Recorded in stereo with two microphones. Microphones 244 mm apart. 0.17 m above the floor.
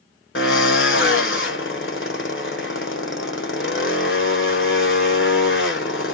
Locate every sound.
0.3 s a drill: 55° left (ahead or behind), 0.9 m